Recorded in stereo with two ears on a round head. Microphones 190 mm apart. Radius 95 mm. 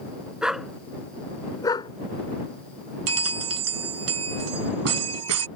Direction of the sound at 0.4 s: 5° right (ahead or behind).